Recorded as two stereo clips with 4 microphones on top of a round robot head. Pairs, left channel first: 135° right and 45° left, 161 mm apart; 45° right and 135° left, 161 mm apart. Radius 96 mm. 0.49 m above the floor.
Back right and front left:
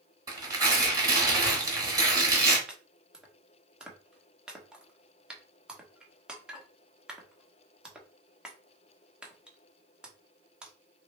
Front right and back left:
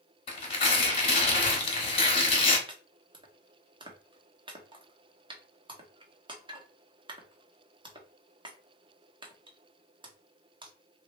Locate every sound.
0.3 s tearing paper: 15° right, 1.4 m
2.7 s chopping: 125° left, 0.9 m